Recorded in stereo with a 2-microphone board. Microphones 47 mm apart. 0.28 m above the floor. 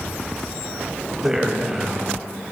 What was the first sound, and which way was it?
A man speaking, 10° right (ahead or behind).